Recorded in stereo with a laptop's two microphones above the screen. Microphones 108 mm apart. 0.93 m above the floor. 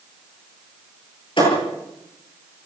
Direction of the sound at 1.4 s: 50° left (ahead or behind).